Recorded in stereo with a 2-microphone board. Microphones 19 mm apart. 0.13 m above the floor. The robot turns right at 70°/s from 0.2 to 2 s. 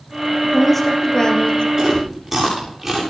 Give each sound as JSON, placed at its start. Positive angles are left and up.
{"t": 0.4, "sound": "a woman speaking", "azimuth_deg": -15, "distance_m": 3.5}
{"t": 1.8, "sound": "chewing", "side_deg": -30, "distance_m": 7.0}